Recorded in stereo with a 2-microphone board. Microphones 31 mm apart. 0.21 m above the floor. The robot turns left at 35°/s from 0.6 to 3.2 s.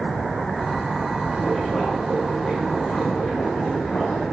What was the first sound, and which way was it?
Boiling, 160° right.